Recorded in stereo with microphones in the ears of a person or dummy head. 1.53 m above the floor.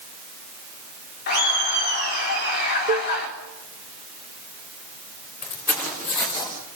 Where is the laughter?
50° left (ahead or behind), 4 m.